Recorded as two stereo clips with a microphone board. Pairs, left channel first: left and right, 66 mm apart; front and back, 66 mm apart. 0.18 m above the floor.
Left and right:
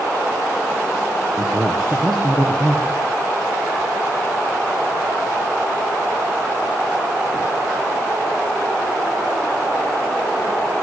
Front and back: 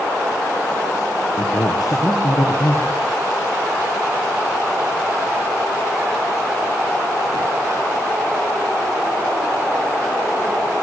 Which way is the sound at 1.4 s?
10° left.